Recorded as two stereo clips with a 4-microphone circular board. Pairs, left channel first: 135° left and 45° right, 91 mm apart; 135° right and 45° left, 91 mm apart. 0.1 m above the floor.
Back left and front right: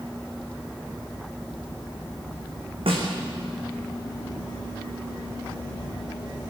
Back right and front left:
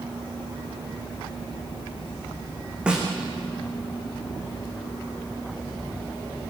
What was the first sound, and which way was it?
A snare drum, 35° right.